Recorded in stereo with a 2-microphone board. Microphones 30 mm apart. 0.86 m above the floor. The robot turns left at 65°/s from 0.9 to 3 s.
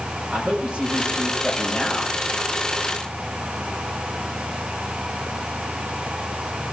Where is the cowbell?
No cowbell in this recording.